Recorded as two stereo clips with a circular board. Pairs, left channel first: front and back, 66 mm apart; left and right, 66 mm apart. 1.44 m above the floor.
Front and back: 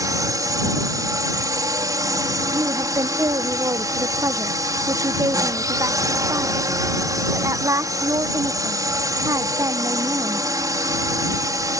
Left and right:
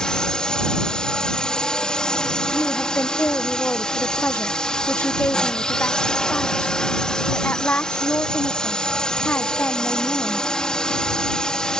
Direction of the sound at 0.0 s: 165° left.